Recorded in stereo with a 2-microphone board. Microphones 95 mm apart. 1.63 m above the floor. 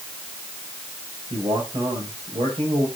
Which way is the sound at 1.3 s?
70° right (ahead or behind).